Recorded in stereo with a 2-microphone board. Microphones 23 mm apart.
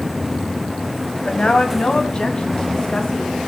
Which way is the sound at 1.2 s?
55° left (ahead or behind).